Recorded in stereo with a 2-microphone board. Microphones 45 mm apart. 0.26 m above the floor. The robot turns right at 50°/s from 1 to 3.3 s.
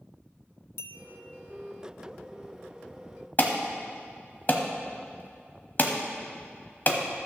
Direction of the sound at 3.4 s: 40° left (ahead or behind).